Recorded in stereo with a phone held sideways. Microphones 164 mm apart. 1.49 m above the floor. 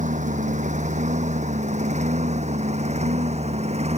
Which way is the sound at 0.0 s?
45° right (ahead or behind).